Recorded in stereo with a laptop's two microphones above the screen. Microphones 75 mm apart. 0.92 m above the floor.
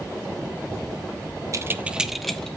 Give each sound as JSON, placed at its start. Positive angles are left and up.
{"t": 1.5, "sound": "keys jangling", "side_deg": -45, "distance_m": 0.8}